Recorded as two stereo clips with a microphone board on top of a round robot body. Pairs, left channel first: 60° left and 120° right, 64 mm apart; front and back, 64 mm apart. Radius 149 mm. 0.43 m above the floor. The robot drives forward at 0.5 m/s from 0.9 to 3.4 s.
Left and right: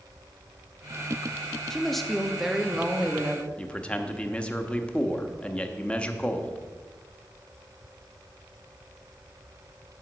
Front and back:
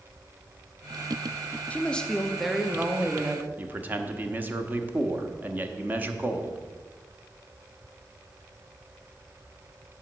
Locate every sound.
1.7 s a woman speaking: 10° right, 1.1 m; by 3.5 s 170° right, 1.1 m
3.6 s a man speaking: 125° left, 1.0 m